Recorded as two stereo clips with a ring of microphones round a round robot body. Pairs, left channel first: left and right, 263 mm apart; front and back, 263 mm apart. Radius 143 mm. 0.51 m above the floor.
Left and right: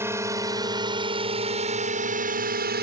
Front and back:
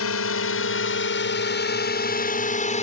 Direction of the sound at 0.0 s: 10° right.